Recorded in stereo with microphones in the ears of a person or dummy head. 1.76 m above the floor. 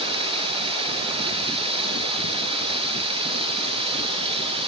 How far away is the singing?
I don't hear singing.